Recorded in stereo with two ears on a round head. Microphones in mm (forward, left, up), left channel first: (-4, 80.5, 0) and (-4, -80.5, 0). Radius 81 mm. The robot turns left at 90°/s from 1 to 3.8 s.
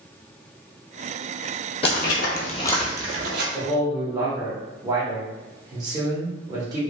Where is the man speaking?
30° right (ahead or behind), 0.9 m; by 6.8 s 20° right (ahead or behind), 0.9 m.